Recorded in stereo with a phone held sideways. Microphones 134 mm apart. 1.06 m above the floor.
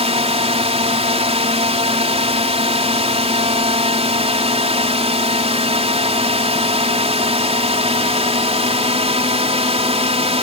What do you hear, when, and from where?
0.0 s a drone: 50° right (ahead or behind)